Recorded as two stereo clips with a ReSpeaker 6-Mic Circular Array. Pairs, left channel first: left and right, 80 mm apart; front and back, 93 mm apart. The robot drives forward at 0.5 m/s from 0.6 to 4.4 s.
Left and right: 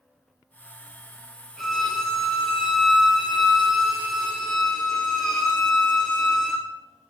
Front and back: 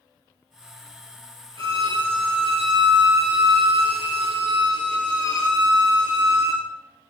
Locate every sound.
1.6 s a violin: 175° left, 0.9 m; by 6.6 s straight behind, 2.5 m